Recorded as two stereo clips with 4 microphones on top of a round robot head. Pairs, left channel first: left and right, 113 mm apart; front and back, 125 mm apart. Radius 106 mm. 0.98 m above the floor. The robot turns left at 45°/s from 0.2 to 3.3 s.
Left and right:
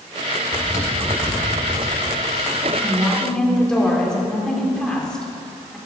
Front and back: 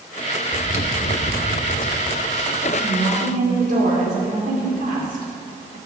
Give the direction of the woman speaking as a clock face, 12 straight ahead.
5 o'clock.